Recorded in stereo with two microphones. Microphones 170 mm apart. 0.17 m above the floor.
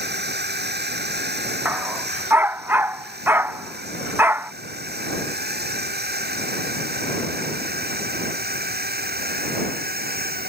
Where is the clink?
I don't hear a clink.